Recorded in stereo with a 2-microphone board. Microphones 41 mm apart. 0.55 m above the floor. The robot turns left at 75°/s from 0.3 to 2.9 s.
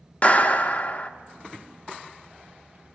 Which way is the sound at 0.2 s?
125° left.